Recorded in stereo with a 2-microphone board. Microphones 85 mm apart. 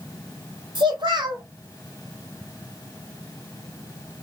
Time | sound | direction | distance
0.8 | a child speaking | 60° right (ahead or behind) | 1.5 m